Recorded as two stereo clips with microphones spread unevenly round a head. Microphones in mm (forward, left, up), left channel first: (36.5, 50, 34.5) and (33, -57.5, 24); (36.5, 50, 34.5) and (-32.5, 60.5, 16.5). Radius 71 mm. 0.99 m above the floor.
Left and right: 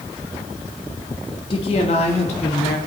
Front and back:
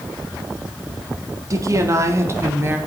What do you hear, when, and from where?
1.5 s a woman speaking: 140° left, 1.6 m; by 2.8 s 120° left, 2.5 m